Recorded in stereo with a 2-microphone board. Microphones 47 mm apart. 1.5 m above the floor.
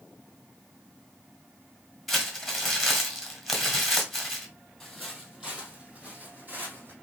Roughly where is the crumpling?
Centre.